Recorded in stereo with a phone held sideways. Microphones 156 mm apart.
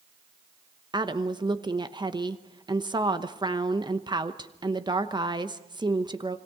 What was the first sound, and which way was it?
A woman speaking, 30° right (ahead or behind).